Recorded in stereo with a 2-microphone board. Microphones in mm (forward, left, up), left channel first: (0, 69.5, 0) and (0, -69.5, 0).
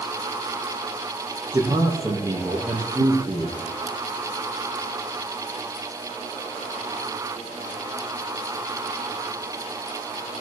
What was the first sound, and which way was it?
A man speaking, 20° right (ahead or behind).